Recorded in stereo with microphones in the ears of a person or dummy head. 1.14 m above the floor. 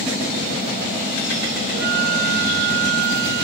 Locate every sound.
1.7 s a flute: 65° right (ahead or behind)